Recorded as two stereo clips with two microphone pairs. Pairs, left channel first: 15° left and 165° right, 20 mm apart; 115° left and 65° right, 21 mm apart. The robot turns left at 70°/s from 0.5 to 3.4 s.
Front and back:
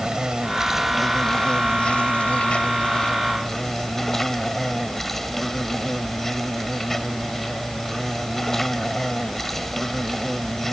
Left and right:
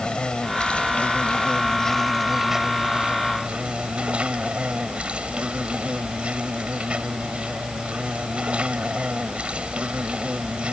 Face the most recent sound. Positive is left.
turn(degrees=-60)